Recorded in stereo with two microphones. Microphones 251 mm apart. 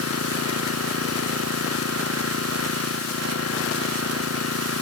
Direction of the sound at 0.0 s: 70° right (ahead or behind).